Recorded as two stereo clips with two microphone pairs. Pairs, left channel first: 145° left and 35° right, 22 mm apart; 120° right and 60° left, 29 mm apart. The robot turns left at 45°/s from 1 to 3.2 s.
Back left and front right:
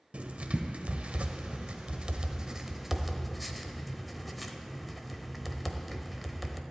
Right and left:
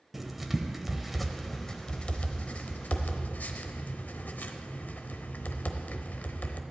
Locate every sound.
0.1 s writing: 25° right, 0.8 m; by 6.6 s 125° right, 0.8 m